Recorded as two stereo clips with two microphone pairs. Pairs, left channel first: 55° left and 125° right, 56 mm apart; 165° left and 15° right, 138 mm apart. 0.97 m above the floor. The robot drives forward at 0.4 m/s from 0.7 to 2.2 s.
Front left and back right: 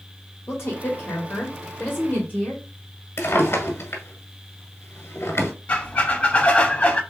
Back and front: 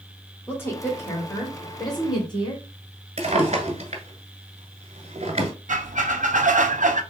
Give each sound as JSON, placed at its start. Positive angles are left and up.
{"t": 0.5, "sound": "a woman speaking", "azimuth_deg": 95, "distance_m": 2.0}
{"t": 3.2, "sound": "a drawer", "azimuth_deg": 25, "distance_m": 1.5}
{"t": 5.7, "sound": "a squeak", "azimuth_deg": 0, "distance_m": 0.6}